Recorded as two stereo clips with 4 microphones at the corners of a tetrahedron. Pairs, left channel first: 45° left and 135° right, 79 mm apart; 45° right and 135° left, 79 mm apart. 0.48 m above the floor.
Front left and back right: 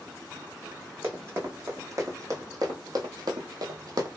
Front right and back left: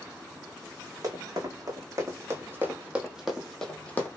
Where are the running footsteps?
170° left, 1.5 m; by 4.1 s 105° right, 0.8 m.